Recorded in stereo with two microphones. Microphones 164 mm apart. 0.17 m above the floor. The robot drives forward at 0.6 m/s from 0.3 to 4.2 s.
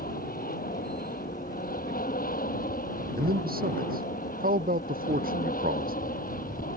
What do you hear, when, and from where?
0.0 s an aircraft: 60° left (ahead or behind)
3.2 s a man speaking: 65° right (ahead or behind); by 6.2 s 60° right (ahead or behind)